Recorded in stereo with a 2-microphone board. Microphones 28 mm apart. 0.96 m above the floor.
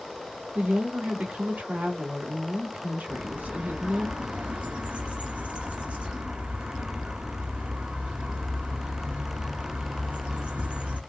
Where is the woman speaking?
70° right (ahead or behind), 2 m.